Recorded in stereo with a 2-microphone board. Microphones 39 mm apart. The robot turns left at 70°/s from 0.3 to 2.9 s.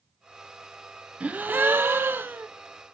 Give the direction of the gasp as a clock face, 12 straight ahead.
1 o'clock.